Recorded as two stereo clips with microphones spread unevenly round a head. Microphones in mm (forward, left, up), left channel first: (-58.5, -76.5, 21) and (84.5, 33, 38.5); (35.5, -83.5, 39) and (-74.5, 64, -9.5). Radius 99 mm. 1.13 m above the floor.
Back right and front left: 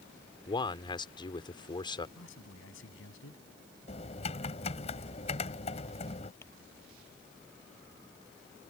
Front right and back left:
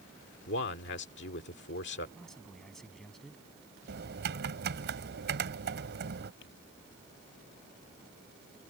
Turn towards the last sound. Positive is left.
turn(degrees=-65)